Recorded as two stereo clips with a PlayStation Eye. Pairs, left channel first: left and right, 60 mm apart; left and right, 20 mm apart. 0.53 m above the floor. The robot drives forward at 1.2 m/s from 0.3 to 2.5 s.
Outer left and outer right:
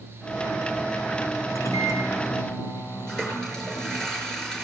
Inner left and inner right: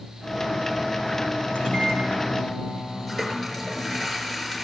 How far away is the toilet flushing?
About 5.5 m.